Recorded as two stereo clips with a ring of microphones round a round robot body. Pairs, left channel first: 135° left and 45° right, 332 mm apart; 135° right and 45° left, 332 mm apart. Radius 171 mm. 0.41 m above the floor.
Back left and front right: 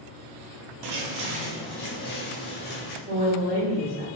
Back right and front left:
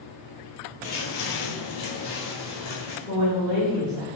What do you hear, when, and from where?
0.8 s footsteps: 65° right, 0.8 m; by 3.0 s 165° right, 2.0 m
3.1 s a woman speaking: 80° right, 1.2 m